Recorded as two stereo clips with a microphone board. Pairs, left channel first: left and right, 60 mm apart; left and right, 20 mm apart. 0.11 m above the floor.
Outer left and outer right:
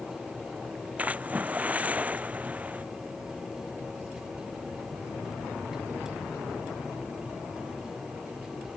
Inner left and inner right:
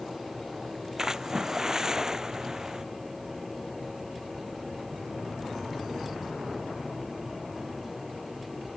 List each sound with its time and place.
1.0 s a splash: 25° right (ahead or behind)